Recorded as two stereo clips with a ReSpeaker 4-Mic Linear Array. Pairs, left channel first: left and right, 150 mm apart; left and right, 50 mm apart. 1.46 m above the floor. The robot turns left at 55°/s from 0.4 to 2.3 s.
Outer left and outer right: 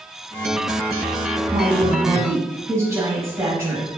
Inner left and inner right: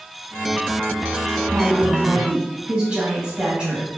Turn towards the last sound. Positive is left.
turn(degrees=-160)